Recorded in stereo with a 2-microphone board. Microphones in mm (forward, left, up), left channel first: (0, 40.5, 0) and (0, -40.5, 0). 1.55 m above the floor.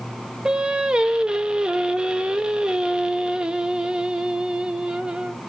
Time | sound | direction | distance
0.5 | singing | 10° right (ahead or behind) | 0.6 m